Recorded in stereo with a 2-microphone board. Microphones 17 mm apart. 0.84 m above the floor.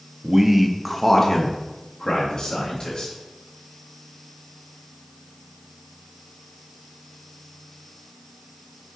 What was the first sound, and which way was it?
A man speaking, 35° right (ahead or behind).